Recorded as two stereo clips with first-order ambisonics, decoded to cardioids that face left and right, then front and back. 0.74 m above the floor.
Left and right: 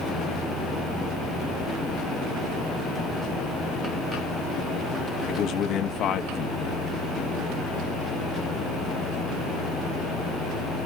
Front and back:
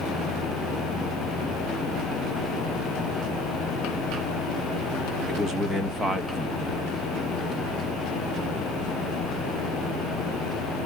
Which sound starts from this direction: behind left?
A man speaking, at 5.3 s.